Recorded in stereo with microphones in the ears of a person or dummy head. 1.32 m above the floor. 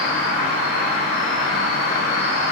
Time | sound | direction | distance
0.0 | an insect | 60° right (ahead or behind) | 1.1 m